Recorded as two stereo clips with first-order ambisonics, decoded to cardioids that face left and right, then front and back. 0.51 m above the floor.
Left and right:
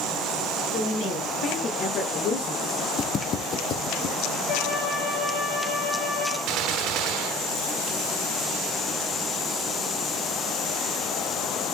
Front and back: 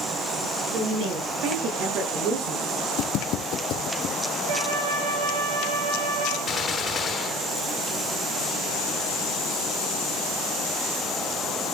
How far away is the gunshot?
About 0.7 m.